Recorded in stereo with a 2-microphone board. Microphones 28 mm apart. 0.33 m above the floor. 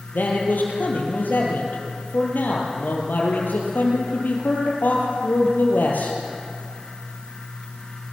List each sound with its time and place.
0.1 s a man speaking: 85° left, 7 m